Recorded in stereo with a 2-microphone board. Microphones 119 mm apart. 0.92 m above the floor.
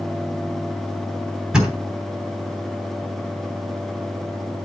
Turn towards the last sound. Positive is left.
turn(degrees=-5)  # may be behind; listen again after turning